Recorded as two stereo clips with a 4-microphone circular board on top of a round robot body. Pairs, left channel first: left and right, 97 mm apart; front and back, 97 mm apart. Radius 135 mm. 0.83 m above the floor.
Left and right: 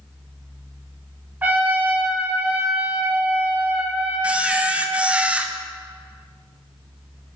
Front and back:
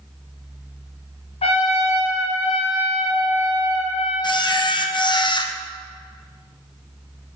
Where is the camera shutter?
15° right, 1.0 m.